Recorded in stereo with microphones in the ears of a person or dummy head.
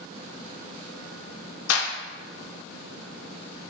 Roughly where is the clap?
Left.